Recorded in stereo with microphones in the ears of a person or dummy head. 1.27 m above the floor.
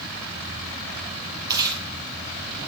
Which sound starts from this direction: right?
Chewing, at 1.5 s.